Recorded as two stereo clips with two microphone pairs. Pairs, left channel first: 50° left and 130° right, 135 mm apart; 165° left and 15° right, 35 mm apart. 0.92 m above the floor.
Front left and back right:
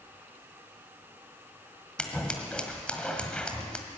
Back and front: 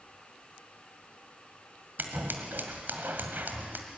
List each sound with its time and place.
2.0 s scissors: 30° right, 1.7 m